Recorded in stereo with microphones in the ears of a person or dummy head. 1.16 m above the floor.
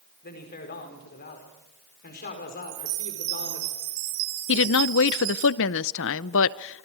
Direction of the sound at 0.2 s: 45° left (ahead or behind).